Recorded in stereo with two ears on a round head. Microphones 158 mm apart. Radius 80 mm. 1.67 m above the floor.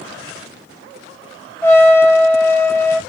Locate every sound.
1.6 s a trumpet: 15° left (ahead or behind), 1.2 m